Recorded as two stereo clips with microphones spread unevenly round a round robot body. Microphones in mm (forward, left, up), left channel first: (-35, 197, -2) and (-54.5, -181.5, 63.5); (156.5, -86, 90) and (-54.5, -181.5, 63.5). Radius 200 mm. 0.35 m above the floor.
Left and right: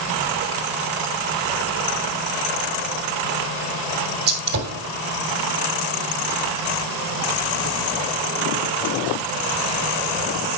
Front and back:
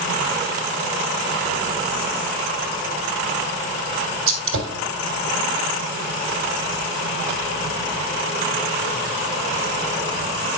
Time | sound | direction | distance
4.3 | a gunshot | 150° right | 2.5 m